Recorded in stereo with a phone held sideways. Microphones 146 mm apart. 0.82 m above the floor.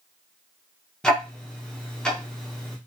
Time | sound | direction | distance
1.0 | ticking | 5° left (ahead or behind) | 0.7 m